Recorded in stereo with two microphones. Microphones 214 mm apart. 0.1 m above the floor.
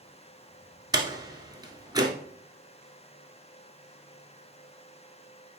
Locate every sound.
0.9 s a door slam: 20° right (ahead or behind), 1.3 m